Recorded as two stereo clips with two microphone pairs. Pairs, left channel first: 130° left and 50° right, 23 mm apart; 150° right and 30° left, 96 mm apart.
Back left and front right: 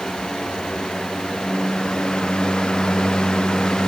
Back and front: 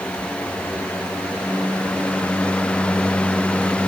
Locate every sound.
Only background noise.